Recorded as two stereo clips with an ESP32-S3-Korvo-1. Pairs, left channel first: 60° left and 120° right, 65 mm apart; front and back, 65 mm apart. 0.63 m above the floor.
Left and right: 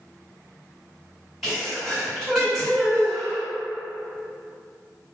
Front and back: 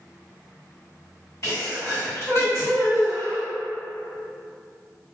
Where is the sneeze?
35° right, 1.9 m.